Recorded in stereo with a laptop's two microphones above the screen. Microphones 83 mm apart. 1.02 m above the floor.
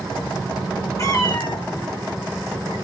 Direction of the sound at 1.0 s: 35° left (ahead or behind).